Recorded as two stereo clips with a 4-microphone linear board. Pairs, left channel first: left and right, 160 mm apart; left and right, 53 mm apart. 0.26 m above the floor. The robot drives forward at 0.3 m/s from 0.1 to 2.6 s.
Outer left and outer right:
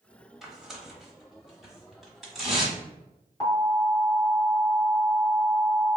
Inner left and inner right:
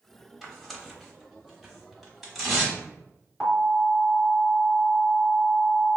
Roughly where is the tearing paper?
Centre.